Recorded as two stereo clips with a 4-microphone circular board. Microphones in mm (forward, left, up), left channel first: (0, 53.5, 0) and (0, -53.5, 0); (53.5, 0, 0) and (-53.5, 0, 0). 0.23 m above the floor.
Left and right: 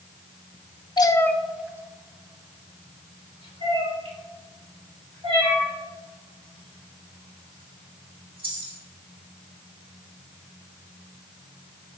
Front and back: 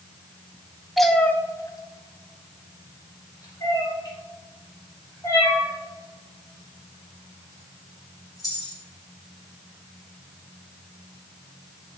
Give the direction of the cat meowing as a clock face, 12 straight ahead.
9 o'clock.